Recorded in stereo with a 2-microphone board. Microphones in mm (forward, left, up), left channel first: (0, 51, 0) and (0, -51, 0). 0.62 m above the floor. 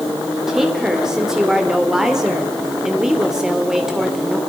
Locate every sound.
0.5 s a woman speaking: 5° right (ahead or behind), 2.5 m